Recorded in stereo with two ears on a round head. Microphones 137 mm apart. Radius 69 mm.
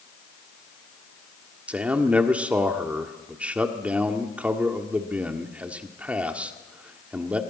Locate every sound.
1.7 s a man speaking: 10° right (ahead or behind), 1.5 m